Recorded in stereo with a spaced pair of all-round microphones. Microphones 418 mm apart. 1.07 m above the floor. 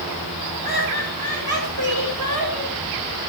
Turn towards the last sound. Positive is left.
turn(degrees=-60)  # may be behind; listen again after turning